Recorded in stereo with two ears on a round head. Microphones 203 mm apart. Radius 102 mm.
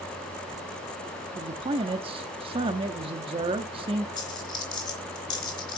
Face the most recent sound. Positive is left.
turn(degrees=20)  # may be behind; listen again after turning